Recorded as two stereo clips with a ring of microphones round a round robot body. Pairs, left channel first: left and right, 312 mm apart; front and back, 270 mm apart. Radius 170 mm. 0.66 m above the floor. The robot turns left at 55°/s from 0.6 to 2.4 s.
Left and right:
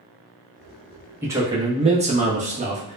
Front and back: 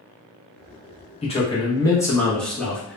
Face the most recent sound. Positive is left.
turn(degrees=-85)